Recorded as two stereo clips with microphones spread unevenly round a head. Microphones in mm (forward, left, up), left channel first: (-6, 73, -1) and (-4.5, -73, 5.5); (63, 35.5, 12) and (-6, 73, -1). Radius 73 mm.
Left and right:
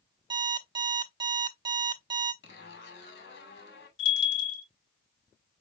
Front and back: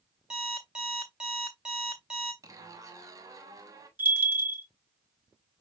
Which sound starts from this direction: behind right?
An alarm clock, at 0.3 s.